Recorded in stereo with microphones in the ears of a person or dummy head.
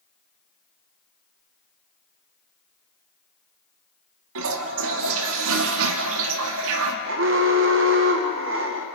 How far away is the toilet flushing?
About 1.9 m.